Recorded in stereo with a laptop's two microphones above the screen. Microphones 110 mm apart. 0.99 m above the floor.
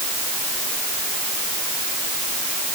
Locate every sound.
Only background noise.